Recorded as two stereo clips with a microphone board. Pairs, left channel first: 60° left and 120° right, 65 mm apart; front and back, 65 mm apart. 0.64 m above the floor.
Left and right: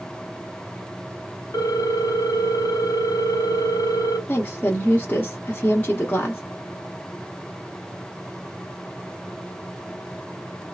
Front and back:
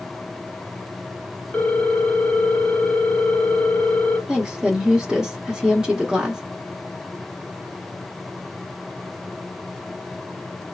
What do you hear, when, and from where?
1.5 s a ringtone: 75° left, 0.9 m
4.3 s a woman speaking: 110° left, 0.8 m